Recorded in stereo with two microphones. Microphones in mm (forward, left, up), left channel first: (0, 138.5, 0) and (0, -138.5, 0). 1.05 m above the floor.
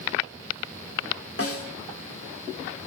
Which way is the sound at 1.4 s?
55° left (ahead or behind).